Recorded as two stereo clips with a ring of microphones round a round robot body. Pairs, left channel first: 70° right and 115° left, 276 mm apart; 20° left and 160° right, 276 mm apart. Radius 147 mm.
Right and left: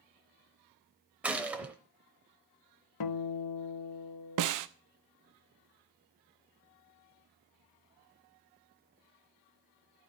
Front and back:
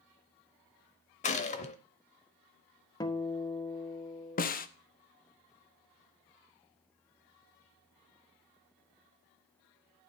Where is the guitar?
55° right, 0.9 m.